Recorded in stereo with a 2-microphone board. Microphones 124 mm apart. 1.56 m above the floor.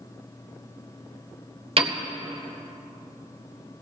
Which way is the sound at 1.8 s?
50° right (ahead or behind).